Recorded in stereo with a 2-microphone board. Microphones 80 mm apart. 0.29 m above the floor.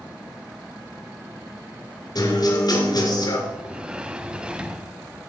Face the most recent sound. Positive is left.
turn(degrees=-10)  # may be behind; listen again after turning